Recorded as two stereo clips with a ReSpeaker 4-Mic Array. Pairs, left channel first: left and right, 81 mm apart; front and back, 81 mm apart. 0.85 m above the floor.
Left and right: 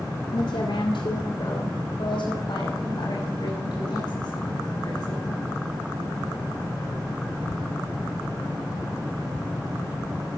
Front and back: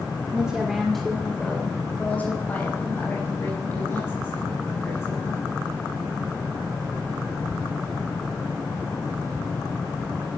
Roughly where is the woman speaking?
Left.